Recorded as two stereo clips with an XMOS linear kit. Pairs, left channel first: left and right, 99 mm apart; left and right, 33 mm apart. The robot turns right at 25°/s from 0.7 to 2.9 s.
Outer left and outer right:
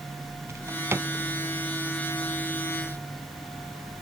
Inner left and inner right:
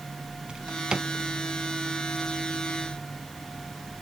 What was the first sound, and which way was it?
A drawer, 30° right (ahead or behind).